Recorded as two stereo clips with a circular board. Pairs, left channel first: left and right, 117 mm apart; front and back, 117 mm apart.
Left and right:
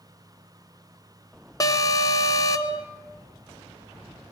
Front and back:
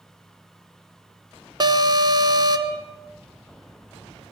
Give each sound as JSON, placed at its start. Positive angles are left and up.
{"t": 1.6, "sound": "an alarm", "azimuth_deg": 140, "distance_m": 1.3}